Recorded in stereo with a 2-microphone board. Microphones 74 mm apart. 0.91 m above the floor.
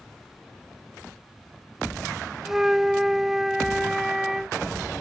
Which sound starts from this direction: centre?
A flute, at 2.5 s.